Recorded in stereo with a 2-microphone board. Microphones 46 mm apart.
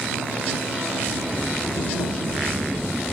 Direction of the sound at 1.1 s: 10° left (ahead or behind).